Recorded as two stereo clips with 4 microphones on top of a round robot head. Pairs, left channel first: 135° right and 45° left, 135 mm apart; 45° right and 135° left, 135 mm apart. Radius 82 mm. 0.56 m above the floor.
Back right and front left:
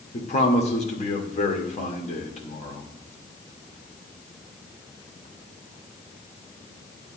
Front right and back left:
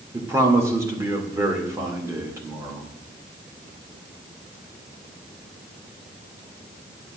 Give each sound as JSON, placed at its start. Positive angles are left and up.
{"t": 0.1, "sound": "a man speaking", "azimuth_deg": -160, "distance_m": 1.9}